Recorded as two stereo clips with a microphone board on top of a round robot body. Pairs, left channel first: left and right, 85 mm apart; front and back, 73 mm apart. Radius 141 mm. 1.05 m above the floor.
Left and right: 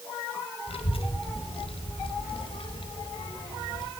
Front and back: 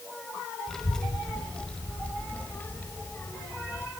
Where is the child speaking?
85° left, 4.5 m; by 3.9 s 55° left, 4.5 m.